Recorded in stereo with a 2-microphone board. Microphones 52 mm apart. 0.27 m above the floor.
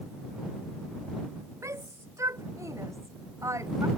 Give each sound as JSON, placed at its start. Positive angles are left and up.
{"t": 1.6, "sound": "a shout", "side_deg": -70}